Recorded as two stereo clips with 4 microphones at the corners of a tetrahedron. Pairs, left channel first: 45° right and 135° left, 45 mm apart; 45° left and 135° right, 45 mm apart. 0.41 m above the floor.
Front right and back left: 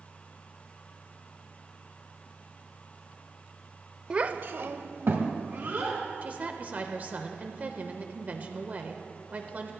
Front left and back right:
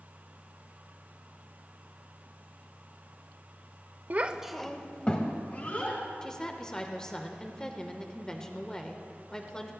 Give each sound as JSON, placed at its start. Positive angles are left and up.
{"t": 4.1, "sound": "a child speaking", "azimuth_deg": -165, "distance_m": 0.7}
{"t": 6.2, "sound": "a woman speaking", "azimuth_deg": 110, "distance_m": 1.0}